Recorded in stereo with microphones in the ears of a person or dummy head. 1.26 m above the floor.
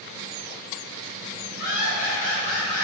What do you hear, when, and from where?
1.6 s laughter: 55° left (ahead or behind), 1.9 m; by 2.8 s 15° left (ahead or behind), 1.3 m